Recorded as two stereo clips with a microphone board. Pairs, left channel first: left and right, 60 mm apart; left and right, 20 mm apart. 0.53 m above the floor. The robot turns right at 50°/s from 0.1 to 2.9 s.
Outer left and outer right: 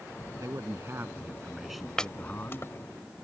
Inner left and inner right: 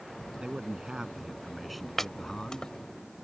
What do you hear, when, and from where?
0.4 s a man speaking: 70° right; by 2.7 s 45° left
2.0 s chopping: 10° left (ahead or behind); by 2.7 s 50° left (ahead or behind)